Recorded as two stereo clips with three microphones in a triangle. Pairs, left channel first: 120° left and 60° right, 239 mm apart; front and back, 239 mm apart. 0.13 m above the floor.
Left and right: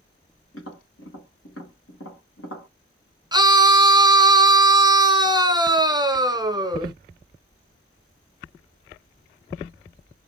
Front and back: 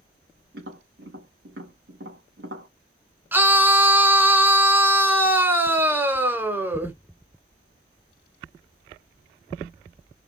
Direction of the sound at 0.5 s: 145° left.